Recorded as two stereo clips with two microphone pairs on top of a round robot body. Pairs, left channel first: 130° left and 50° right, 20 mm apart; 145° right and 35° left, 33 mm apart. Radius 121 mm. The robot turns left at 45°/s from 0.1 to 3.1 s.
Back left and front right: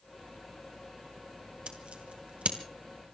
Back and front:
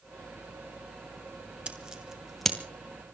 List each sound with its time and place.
1.7 s scissors: 20° right, 2.5 m; by 2.6 s 60° right, 2.5 m